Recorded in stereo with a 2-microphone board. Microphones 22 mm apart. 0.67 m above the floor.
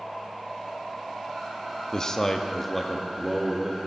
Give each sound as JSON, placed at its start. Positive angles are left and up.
{"t": 1.9, "sound": "a man speaking", "side_deg": 30, "distance_m": 0.6}